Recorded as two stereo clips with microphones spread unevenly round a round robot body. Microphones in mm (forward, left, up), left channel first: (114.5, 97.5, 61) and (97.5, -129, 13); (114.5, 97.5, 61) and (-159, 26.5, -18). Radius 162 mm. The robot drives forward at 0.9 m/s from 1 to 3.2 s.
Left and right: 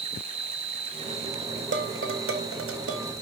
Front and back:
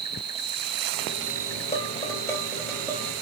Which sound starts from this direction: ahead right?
Dishes clattering, at 1.7 s.